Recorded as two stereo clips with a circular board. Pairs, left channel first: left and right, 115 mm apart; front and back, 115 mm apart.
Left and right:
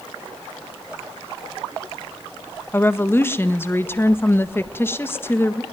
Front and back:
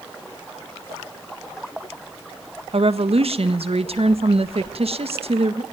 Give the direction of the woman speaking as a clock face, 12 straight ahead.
7 o'clock.